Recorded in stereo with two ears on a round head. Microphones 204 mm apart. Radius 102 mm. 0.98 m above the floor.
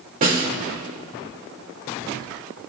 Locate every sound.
0.2 s a snare drum: 40° right (ahead or behind), 1.9 m